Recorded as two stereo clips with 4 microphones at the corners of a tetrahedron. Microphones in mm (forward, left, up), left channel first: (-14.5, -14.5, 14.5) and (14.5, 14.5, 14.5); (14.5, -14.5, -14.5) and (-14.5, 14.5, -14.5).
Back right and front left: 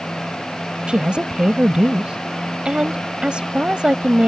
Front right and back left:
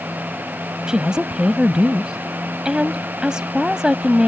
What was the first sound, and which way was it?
A woman speaking, 85° left.